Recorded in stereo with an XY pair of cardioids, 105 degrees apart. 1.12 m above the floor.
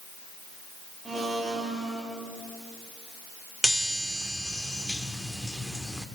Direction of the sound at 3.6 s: Straight ahead.